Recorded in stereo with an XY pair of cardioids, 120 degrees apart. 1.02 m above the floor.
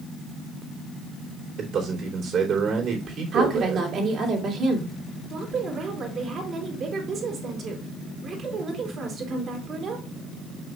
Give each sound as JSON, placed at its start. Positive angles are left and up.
{"t": 1.6, "sound": "a man speaking", "azimuth_deg": -55, "distance_m": 3.0}
{"t": 3.3, "sound": "a woman speaking", "azimuth_deg": -55, "distance_m": 2.5}
{"t": 5.3, "sound": "a woman speaking", "azimuth_deg": -50, "distance_m": 3.0}